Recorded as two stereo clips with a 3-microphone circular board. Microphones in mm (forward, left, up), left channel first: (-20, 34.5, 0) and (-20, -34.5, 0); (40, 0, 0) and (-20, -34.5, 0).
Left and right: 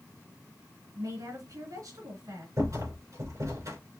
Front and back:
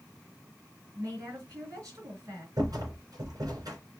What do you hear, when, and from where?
0.9 s a woman speaking: 115° right, 3 m
2.6 s a rattle: 130° right, 3 m